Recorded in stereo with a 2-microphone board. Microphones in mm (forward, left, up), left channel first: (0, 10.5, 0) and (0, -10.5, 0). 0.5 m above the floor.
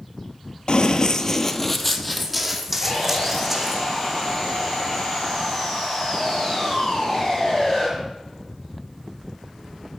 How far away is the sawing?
About 7.5 m.